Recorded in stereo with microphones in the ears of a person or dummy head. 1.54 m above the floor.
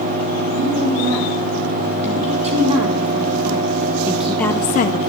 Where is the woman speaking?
40° right (ahead or behind), 3.5 m; by 5.1 s 65° left (ahead or behind), 0.6 m.